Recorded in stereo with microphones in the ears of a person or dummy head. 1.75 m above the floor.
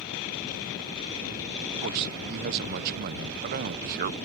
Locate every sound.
1.8 s a man speaking: 50° right (ahead or behind)